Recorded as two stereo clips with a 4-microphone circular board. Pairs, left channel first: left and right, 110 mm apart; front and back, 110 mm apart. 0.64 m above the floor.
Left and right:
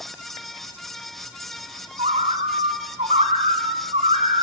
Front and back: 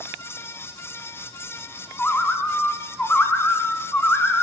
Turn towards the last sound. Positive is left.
turn(degrees=-75)